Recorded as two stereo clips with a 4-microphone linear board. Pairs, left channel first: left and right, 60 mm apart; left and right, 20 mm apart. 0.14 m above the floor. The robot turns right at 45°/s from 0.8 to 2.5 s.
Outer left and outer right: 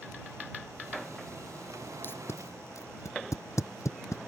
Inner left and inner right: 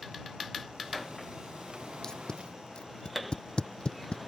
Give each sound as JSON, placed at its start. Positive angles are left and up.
{"t": 2.0, "sound": "tape being pulled", "side_deg": 35}